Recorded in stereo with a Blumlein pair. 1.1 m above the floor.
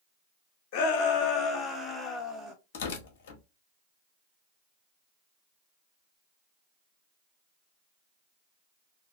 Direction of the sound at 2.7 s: 50° left.